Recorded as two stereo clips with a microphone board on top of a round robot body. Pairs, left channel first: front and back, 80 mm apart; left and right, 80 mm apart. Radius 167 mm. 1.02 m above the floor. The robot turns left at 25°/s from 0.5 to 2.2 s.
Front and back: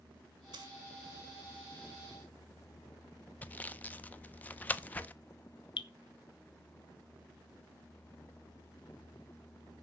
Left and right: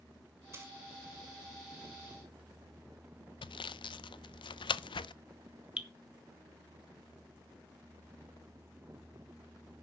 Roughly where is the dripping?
Ahead.